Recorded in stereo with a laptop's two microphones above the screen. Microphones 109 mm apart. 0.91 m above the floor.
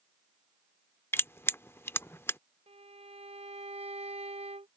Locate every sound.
1.1 s crushing: 20° left (ahead or behind)
2.7 s a violin: 75° right (ahead or behind)